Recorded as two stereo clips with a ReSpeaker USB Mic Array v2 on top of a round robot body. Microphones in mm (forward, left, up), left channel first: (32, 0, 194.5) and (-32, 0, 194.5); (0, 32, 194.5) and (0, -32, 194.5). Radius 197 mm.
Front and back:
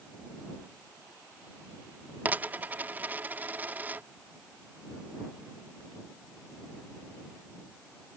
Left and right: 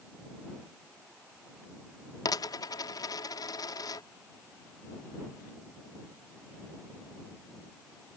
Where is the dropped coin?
115° left.